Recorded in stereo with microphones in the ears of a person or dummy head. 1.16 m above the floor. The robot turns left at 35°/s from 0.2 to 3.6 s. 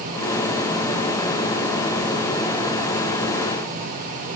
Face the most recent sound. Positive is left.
No sound to turn to.